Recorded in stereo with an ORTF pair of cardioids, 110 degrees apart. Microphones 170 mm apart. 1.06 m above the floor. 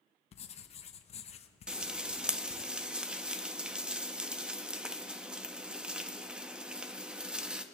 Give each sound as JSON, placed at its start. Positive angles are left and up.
{"t": 0.3, "sound": "writing", "azimuth_deg": 40, "distance_m": 0.8}
{"t": 1.7, "sound": "frying", "azimuth_deg": -5, "distance_m": 0.8}